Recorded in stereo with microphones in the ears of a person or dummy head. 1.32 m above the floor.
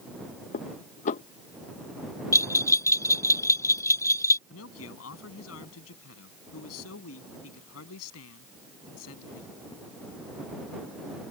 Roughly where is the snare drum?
I don't hear a snare drum.